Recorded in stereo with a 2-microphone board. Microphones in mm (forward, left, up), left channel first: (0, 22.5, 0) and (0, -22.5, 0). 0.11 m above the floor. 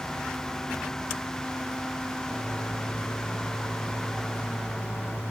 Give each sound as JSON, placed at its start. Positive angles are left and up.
{"t": 2.2, "sound": "a microwave", "side_deg": 40, "distance_m": 6.5}